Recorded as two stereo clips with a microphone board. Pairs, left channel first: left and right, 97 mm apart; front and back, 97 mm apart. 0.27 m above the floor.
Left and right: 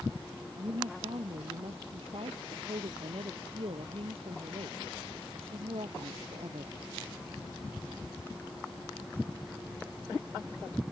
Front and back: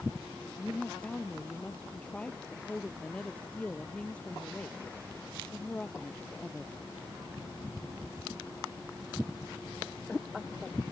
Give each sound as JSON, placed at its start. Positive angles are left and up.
{"t": 0.6, "sound": "a woman speaking", "azimuth_deg": -80}